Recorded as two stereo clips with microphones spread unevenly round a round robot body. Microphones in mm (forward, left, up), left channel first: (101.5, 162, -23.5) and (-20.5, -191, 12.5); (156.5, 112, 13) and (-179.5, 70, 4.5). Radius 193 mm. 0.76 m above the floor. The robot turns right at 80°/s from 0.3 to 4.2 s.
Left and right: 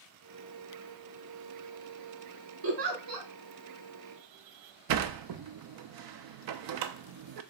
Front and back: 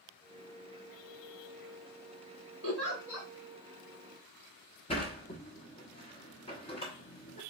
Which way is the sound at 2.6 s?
125° right.